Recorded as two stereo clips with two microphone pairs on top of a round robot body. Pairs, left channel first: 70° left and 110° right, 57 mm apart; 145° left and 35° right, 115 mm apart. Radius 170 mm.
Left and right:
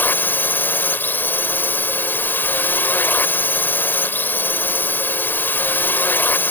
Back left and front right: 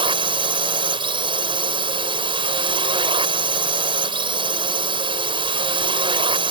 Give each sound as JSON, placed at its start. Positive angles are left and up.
{"t": 0.0, "sound": "a drone", "azimuth_deg": 10}